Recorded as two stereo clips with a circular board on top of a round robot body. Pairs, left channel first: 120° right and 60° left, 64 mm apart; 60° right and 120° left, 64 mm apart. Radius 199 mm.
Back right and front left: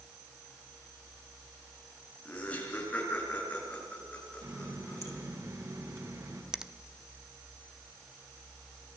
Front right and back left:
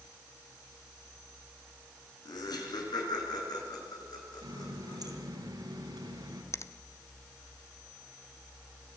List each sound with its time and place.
2.2 s laughter: 55° right, 7 m; by 5.2 s 50° right, 8.5 m
4.4 s a running tap: 100° left, 4 m
6.5 s a finger snap: 20° right, 1.1 m